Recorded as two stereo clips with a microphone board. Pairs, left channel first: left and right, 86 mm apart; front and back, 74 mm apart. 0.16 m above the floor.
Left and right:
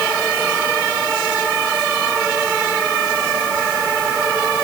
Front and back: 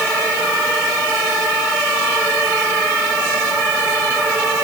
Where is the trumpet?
No trumpet in this recording.